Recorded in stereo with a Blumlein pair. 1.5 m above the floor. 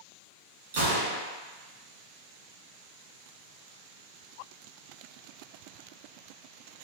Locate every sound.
0.7 s a gunshot: 60° right, 1.2 m